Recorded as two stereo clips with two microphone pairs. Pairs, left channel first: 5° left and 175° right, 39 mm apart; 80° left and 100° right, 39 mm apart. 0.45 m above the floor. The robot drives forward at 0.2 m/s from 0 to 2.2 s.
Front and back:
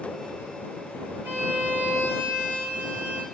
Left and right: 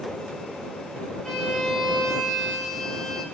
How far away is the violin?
About 3 m.